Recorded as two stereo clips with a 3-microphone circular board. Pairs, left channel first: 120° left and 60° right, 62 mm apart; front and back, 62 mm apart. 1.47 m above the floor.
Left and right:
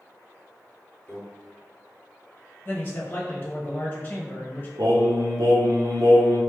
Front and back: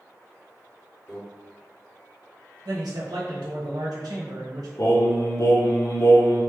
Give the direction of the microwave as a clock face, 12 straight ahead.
10 o'clock.